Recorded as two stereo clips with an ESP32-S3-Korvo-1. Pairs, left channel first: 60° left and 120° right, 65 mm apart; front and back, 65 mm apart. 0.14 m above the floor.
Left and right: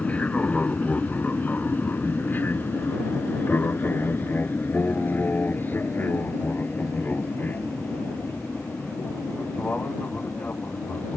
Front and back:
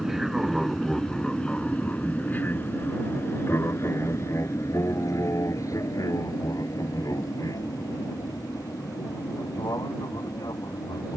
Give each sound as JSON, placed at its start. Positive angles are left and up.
{"t": 0.0, "sound": "an aircraft", "azimuth_deg": 100}